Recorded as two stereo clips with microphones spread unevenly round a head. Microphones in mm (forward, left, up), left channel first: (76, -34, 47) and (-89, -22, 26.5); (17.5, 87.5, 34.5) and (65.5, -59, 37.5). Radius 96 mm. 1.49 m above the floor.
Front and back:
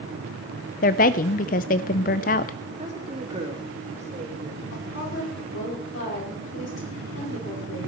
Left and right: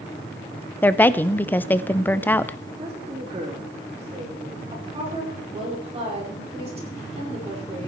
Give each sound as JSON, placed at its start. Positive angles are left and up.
{"t": 0.8, "sound": "a woman speaking", "azimuth_deg": 30, "distance_m": 0.5}
{"t": 2.8, "sound": "a woman speaking", "azimuth_deg": -130, "distance_m": 3.0}
{"t": 4.7, "sound": "a woman speaking", "azimuth_deg": -20, "distance_m": 5.0}